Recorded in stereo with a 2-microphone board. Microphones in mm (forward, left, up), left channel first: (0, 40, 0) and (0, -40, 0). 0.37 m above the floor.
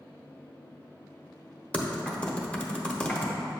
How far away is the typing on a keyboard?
About 0.8 m.